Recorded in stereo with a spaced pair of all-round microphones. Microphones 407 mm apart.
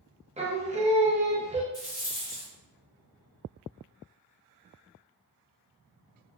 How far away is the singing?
About 0.6 m.